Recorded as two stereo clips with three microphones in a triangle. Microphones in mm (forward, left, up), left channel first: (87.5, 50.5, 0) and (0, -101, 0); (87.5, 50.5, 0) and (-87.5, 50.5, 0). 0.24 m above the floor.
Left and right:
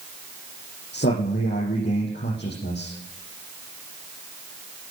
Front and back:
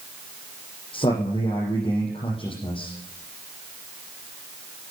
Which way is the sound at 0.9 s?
60° left.